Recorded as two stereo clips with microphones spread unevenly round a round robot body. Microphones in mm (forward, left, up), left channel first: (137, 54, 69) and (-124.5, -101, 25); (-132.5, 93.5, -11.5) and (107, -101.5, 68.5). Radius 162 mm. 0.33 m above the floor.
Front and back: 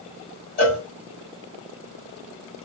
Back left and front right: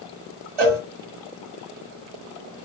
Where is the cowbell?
30° right, 1.9 m.